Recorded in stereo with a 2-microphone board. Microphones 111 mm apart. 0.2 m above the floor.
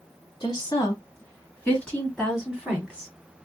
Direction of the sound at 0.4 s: 35° left (ahead or behind).